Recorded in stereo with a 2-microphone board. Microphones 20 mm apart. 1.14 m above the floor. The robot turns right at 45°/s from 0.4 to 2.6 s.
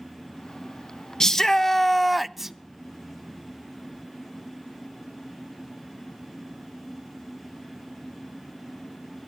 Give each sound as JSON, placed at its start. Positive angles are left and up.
{"t": 1.2, "sound": "a shout", "azimuth_deg": 145, "distance_m": 0.6}